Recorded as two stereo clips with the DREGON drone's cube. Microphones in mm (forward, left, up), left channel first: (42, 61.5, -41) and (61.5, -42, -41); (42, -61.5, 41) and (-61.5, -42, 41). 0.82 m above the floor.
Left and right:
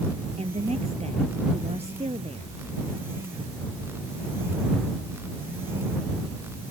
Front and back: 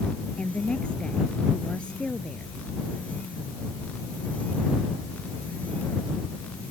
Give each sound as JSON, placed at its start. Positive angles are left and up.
{"t": 0.4, "sound": "a woman speaking", "azimuth_deg": -90}